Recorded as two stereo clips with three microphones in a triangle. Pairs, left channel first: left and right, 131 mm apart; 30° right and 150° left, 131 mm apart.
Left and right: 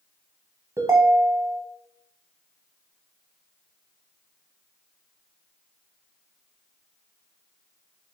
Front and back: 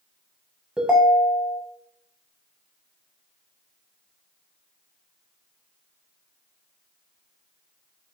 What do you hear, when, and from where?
0.8 s a ringtone: 135° right, 0.5 m